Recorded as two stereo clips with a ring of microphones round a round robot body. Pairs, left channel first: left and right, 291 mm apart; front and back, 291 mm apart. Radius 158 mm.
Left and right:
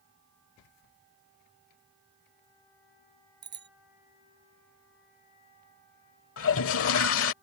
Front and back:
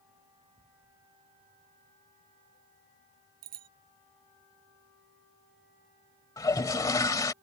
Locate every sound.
3.4 s a bicycle bell: 145° right
6.4 s a toilet flushing: 75° left